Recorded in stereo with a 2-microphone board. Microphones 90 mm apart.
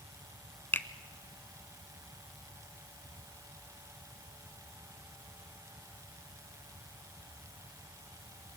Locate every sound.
0.7 s a finger snap: 20° left (ahead or behind), 0.9 m